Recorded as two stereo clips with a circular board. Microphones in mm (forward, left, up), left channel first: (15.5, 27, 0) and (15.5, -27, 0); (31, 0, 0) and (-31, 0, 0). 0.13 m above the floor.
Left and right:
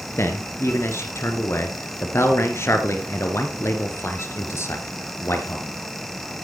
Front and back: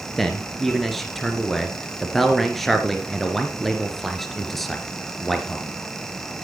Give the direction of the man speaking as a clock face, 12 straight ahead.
9 o'clock.